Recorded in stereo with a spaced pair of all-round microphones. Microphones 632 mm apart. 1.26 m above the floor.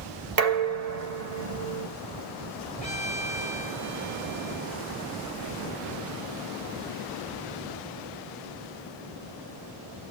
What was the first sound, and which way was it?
Dishes clattering, 75° right (ahead or behind).